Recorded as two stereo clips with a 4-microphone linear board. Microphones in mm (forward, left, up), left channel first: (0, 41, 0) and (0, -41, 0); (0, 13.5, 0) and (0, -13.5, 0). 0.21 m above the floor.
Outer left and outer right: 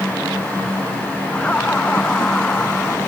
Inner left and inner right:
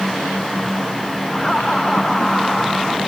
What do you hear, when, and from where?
1.3 s laughter: 15° left (ahead or behind)